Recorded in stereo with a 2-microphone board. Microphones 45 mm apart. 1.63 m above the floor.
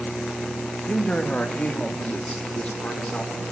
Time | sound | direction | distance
0.9 | a man speaking | 25° left (ahead or behind) | 2 m